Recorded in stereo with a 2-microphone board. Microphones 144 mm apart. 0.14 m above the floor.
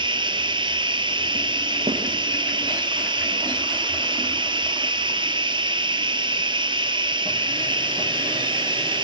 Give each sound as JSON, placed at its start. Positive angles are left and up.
{"t": 0.0, "sound": "running water", "side_deg": -35, "distance_m": 1.1}
{"t": 1.9, "sound": "a snare drum", "side_deg": -45, "distance_m": 3.5}